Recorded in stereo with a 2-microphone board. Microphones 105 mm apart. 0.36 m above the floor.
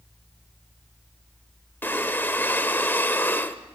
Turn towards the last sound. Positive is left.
turn(degrees=20)  # may be behind; listen again after turning